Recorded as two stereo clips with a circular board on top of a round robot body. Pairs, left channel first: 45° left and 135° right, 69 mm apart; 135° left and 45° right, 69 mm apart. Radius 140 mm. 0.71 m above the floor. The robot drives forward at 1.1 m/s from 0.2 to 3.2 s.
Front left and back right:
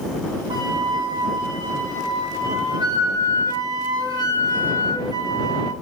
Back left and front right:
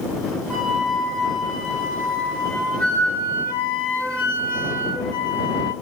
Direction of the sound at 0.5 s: 135° right.